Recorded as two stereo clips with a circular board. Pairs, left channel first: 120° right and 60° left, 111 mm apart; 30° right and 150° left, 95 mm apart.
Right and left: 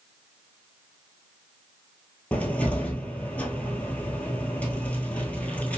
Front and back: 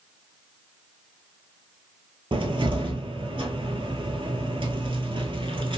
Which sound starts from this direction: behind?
A cupboard door, at 2.3 s.